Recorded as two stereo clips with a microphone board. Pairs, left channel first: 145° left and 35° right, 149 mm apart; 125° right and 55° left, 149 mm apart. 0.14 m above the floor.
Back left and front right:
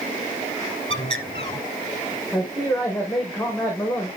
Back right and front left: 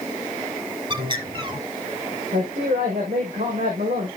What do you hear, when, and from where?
0.9 s a bird: 100° left, 2 m
2.3 s a man speaking: 65° left, 5 m